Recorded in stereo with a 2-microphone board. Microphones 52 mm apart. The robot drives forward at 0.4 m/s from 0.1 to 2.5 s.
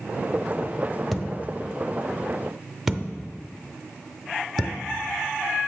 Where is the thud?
Centre (ahead or behind), 0.6 m.